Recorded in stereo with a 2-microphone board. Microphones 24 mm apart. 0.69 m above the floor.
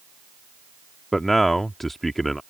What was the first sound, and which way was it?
A man speaking, 10° left (ahead or behind).